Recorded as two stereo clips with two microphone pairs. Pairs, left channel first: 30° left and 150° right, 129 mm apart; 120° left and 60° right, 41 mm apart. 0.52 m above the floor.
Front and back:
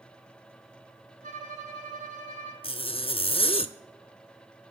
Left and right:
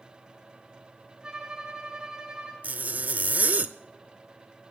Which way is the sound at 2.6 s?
15° right.